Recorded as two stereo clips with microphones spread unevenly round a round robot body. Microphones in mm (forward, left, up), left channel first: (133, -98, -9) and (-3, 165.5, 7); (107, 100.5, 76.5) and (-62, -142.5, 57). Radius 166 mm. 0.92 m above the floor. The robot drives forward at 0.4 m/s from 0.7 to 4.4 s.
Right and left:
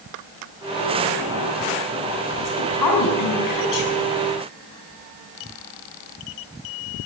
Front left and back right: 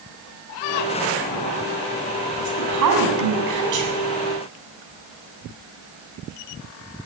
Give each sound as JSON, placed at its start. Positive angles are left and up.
{"t": 2.4, "sound": "a woman speaking", "azimuth_deg": -95, "distance_m": 7.5}